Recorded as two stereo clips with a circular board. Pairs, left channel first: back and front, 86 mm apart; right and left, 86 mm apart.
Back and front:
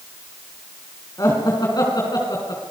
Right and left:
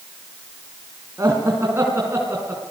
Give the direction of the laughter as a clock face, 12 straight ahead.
7 o'clock.